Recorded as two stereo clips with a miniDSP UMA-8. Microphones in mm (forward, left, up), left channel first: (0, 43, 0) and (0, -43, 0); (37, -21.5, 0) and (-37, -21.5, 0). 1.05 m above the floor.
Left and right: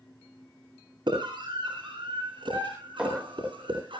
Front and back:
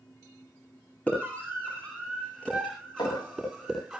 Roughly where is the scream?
Right.